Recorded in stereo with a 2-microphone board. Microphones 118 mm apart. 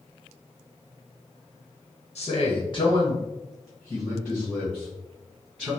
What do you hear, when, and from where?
2.1 s a man speaking: 60° left (ahead or behind), 0.8 m; by 5.7 s 10° right (ahead or behind), 3 m